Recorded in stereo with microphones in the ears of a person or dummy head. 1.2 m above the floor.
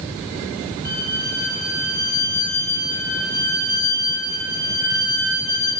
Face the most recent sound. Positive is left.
turn(degrees=50)  # may be behind; listen again after turning